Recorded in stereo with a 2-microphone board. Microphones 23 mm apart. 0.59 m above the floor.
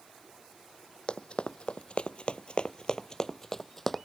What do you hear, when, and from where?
1.1 s running footsteps: 50° left (ahead or behind); by 4.0 s 10° left (ahead or behind)